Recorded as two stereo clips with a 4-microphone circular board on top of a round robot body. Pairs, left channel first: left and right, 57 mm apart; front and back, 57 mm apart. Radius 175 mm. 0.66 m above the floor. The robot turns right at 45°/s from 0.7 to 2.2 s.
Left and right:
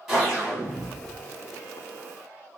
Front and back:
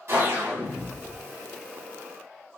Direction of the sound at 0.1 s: 170° right.